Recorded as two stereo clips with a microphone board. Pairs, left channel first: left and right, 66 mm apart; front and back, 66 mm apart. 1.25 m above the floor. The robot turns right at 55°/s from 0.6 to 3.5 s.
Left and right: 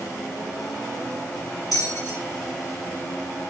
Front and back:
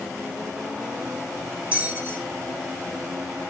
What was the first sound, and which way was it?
A bell, 110° left.